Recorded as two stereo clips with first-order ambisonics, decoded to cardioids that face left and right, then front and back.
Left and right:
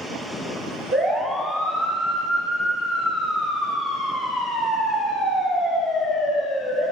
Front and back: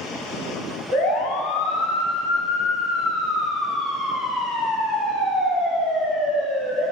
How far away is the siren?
About 5.5 m.